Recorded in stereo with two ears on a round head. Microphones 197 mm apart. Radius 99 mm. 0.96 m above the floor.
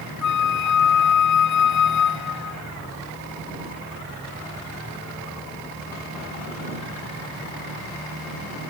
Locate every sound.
0.2 s a flute: 75° left (ahead or behind)